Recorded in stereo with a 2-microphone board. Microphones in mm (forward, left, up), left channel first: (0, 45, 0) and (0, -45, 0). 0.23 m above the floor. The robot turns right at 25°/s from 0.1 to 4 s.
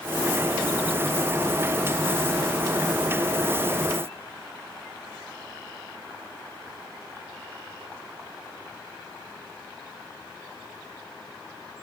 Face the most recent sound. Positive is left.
No sound to turn to.